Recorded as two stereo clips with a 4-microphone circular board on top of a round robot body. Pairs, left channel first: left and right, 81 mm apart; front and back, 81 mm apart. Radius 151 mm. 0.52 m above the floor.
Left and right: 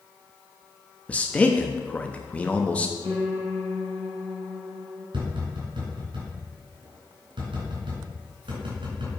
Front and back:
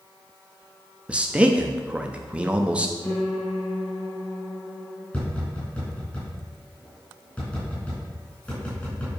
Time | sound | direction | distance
1.1 | a man speaking | 130° left | 0.9 m
3.0 | a piano | 65° right | 3.5 m
5.1 | tapping | 75° right | 4 m